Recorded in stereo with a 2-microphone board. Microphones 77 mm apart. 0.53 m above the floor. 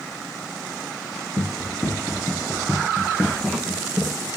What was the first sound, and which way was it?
Running footsteps, 55° left (ahead or behind).